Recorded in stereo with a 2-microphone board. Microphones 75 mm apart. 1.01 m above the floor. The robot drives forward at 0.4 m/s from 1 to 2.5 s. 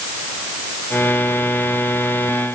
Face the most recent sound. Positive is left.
No sound to turn to.